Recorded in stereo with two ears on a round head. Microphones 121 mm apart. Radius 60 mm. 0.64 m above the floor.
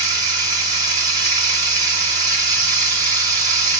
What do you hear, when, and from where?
0.0 s running water: 25° right (ahead or behind), 1.3 m